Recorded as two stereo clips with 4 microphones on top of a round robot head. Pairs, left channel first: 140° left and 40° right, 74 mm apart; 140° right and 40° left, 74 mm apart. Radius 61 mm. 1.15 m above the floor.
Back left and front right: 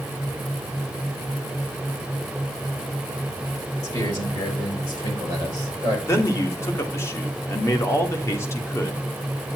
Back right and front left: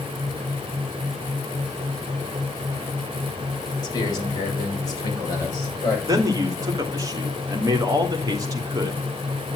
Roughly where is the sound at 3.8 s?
Behind.